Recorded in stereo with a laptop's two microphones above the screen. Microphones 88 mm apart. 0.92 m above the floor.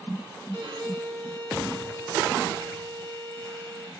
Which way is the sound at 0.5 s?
55° right (ahead or behind).